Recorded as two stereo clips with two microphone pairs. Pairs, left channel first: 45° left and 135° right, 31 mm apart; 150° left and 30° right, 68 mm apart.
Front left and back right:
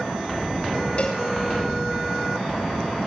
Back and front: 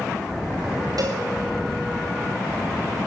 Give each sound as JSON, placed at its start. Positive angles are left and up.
{"t": 1.0, "sound": "a cowbell", "azimuth_deg": -5, "distance_m": 6.5}